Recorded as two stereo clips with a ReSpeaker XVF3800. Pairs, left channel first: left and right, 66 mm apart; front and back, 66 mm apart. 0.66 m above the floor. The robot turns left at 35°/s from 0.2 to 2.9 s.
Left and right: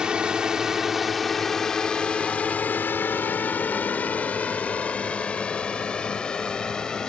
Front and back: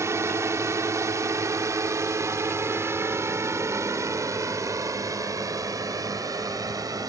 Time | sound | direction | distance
0.0 | a drone | 165° right | ?